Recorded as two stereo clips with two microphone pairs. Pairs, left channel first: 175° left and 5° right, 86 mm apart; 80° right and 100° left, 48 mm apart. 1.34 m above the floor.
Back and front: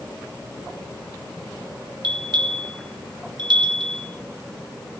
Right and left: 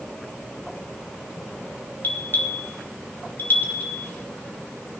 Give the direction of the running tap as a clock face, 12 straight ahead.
I don't hear a running tap.